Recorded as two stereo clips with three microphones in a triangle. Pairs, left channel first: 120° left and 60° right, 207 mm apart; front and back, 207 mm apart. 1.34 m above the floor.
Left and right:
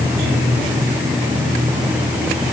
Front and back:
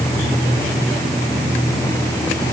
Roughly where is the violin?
I don't hear a violin.